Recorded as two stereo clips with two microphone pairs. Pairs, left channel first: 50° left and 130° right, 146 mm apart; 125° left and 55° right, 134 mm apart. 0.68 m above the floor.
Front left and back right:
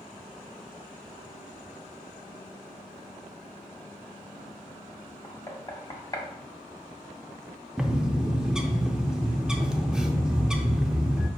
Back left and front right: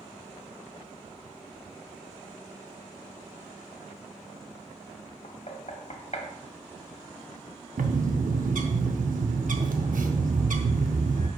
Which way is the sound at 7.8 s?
45° right.